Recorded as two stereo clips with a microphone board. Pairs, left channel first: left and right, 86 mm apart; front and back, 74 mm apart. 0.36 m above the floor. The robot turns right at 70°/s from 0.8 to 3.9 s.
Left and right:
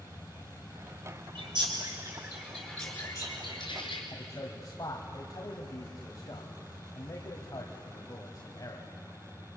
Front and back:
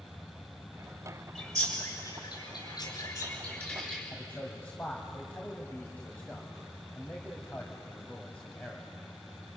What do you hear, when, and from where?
1.4 s a bird: 90° right, 4.5 m; by 4.0 s 85° left, 4.5 m
4.1 s a man speaking: 65° left, 1.8 m